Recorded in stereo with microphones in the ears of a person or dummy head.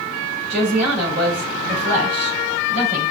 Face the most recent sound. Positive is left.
turn(degrees=-55)  # may be behind; listen again after turning